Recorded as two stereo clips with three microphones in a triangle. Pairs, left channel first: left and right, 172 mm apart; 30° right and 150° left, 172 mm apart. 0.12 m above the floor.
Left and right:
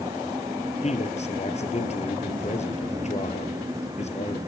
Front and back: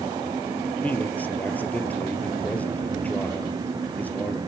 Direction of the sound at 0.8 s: 50° left.